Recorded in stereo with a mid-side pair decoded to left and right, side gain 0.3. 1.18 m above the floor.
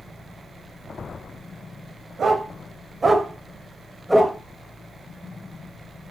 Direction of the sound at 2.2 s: 70° right.